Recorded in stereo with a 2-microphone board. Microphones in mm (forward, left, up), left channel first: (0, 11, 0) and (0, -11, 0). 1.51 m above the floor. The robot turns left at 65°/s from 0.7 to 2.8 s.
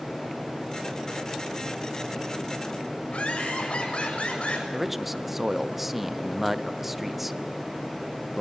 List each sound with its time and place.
3.1 s laughter: 60° left (ahead or behind), 7 m
4.7 s a man speaking: 5° right (ahead or behind), 0.7 m